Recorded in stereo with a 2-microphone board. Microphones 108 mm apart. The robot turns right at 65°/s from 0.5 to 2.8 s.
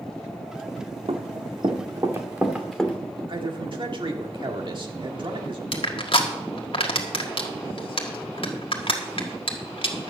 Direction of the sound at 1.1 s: 60° right (ahead or behind).